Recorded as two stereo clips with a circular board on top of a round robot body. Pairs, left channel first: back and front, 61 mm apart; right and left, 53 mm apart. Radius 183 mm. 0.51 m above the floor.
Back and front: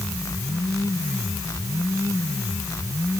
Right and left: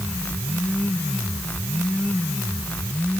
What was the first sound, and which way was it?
Only background noise.